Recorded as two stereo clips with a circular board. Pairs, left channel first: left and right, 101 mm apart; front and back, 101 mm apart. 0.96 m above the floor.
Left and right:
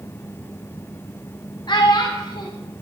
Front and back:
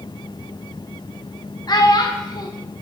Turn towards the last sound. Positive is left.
turn(degrees=50)